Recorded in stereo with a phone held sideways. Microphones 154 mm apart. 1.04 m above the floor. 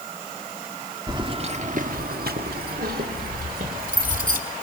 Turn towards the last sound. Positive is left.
turn(degrees=-60)  # may be behind; listen again after turning